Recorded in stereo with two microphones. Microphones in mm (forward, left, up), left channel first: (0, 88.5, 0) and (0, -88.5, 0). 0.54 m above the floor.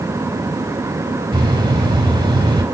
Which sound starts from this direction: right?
A bird, at 1.3 s.